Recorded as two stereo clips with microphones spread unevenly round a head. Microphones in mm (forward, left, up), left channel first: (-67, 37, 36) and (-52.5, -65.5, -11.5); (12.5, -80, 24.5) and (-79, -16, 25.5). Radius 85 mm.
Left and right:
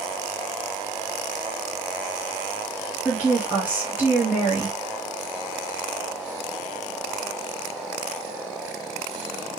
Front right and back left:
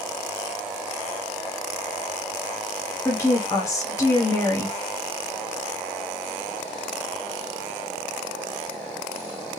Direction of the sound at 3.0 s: 80° right.